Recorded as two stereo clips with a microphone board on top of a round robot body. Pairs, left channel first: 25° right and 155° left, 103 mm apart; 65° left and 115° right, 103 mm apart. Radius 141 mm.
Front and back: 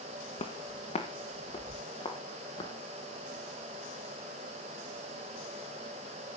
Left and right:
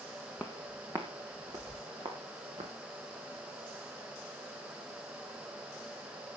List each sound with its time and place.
0.4 s footsteps: 25° right, 1.4 m; by 2.7 s 75° right, 4 m